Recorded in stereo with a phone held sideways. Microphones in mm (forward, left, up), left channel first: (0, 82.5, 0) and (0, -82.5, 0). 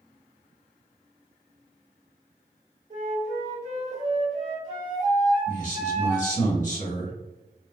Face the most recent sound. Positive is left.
turn(degrees=50)  # may be behind; listen again after turning